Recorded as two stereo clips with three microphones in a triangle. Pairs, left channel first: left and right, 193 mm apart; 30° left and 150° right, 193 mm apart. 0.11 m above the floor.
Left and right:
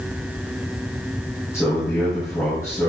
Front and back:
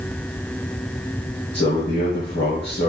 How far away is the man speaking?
About 4 m.